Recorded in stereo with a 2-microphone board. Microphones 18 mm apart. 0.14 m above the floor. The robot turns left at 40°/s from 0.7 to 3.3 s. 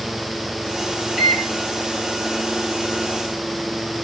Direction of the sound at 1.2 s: 5° right (ahead or behind).